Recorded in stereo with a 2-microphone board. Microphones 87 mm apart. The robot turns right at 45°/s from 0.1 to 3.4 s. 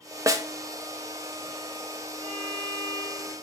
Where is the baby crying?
I don't hear a baby crying.